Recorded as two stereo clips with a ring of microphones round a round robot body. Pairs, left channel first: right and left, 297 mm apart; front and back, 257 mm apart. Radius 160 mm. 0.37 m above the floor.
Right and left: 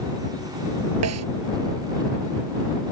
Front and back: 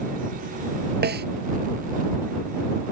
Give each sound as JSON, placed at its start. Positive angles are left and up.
{"t": 1.0, "sound": "a snare drum", "azimuth_deg": 130}